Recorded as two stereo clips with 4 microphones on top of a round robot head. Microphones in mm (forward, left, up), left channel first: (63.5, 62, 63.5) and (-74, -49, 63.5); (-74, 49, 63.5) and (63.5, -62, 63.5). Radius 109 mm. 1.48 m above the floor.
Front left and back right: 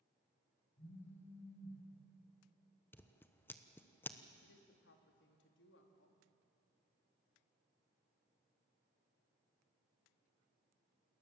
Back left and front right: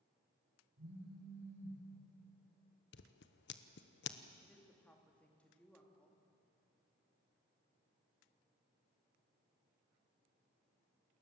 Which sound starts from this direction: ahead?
A phone buzzing, at 0.8 s.